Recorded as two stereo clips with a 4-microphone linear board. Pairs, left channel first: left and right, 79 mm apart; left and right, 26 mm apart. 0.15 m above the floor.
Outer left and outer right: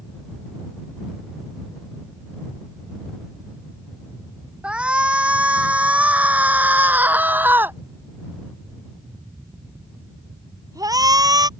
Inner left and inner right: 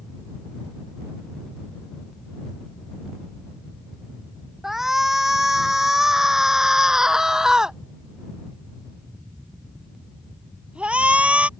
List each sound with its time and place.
4.6 s a shout: 15° right (ahead or behind); by 11.5 s 55° right (ahead or behind)